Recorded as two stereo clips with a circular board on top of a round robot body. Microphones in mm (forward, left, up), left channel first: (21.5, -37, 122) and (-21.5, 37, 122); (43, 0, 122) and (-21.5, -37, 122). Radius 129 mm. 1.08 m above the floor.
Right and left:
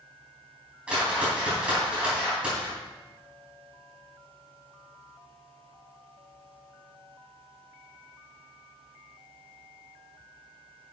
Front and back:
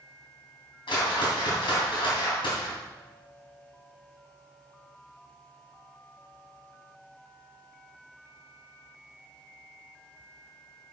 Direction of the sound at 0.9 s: 40° left.